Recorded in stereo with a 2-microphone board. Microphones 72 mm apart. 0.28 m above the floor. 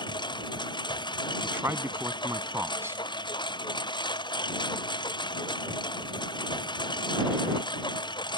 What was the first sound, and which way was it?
A lawn mower, 80° left.